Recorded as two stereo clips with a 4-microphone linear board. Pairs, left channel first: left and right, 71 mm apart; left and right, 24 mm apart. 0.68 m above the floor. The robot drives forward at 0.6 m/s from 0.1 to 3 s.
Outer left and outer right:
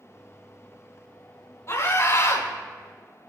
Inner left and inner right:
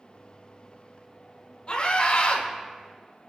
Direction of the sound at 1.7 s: 40° left (ahead or behind).